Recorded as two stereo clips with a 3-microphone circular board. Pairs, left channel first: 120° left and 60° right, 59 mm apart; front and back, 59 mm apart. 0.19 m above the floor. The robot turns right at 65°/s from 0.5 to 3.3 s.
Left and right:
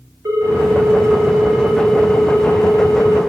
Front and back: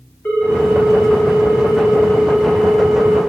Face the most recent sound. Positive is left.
turn(degrees=125)